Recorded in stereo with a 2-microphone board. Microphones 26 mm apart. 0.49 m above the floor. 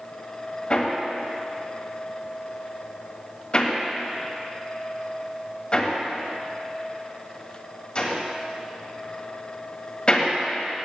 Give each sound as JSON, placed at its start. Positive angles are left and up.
{"t": 0.7, "sound": "hammering", "side_deg": 35, "distance_m": 1.7}